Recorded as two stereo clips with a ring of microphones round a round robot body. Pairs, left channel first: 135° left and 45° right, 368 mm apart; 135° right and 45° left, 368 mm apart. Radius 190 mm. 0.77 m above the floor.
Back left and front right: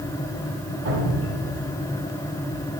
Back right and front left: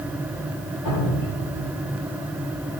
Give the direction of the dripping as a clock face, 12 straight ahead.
3 o'clock.